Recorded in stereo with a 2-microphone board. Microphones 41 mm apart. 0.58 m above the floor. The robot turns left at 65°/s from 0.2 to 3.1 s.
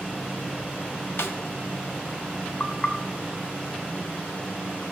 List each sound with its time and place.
1.2 s a snare drum: 80° left, 1.2 m; by 1.4 s 70° left (ahead or behind), 1.2 m
2.6 s knocking: 30° left (ahead or behind), 1.6 m; by 4.8 s centre (ahead or behind), 1.6 m